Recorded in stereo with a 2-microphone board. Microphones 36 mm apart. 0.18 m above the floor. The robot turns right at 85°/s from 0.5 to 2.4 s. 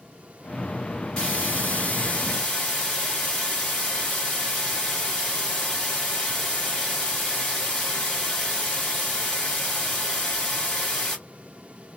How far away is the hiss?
About 2.0 m.